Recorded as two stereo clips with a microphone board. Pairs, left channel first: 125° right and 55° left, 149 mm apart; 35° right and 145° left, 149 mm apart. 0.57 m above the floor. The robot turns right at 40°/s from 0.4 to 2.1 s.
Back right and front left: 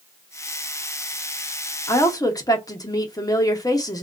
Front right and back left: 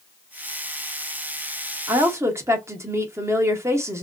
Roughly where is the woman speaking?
Behind.